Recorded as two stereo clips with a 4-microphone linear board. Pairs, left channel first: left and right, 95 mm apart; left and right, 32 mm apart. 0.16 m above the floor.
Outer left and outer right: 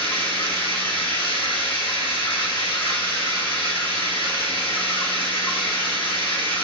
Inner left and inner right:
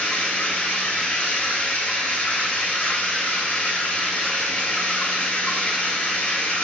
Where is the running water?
60° left (ahead or behind), 1.8 m.